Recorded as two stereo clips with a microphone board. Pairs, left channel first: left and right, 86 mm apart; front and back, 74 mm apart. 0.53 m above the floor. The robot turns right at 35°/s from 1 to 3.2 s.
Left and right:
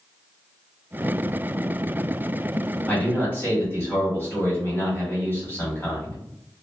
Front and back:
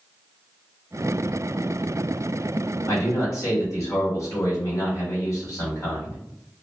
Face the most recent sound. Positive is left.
turn(degrees=30)